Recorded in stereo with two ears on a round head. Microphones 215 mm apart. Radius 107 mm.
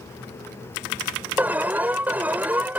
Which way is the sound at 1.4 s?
5° right (ahead or behind).